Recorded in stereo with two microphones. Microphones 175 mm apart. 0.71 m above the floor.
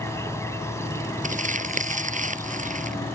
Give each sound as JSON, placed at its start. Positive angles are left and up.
{"t": 0.0, "sound": "an insect", "side_deg": 15}
{"t": 1.2, "sound": "crumpling", "side_deg": -45}